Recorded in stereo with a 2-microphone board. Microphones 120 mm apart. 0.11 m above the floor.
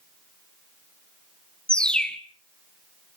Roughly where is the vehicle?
I don't hear a vehicle.